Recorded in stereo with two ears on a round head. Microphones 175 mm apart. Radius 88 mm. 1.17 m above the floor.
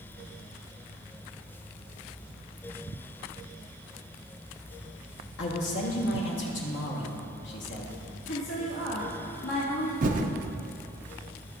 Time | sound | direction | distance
5.4 | a man speaking | 65° left (ahead or behind) | 1.3 m
8.3 | a woman speaking | 70° left (ahead or behind) | 1.8 m
10.0 | typing on a keyboard | 40° right (ahead or behind) | 0.5 m